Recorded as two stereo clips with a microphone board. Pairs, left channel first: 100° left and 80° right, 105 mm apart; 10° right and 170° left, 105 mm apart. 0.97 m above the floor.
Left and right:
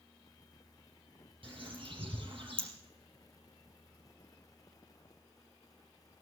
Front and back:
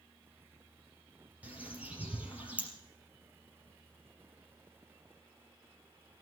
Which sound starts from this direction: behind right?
A bird, at 1.4 s.